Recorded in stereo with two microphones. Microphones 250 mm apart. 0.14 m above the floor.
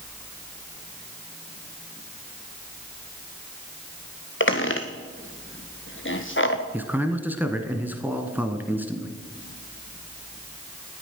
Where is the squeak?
50° left (ahead or behind), 1.2 m.